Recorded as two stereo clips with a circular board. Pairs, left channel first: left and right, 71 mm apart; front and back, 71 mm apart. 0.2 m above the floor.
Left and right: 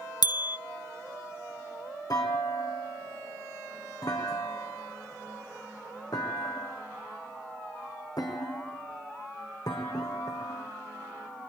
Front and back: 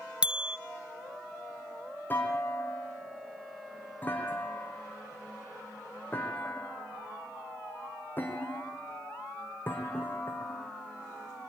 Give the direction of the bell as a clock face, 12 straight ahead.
9 o'clock.